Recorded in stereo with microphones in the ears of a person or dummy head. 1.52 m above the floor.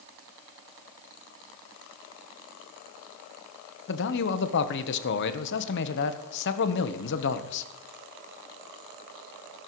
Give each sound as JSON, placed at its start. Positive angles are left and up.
{"t": 3.9, "sound": "a man speaking", "side_deg": 65, "distance_m": 1.0}